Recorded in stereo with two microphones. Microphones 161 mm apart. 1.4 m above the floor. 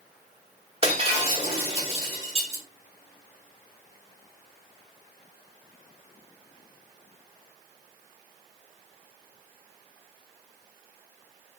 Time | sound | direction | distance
0.8 | breaking glass | 35° right (ahead or behind) | 1.2 m